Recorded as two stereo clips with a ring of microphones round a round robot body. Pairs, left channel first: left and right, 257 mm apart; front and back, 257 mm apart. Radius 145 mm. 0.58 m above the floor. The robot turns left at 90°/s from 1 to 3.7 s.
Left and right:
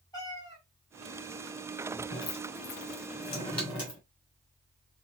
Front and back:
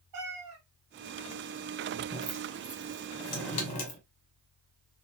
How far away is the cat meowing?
About 1.5 m.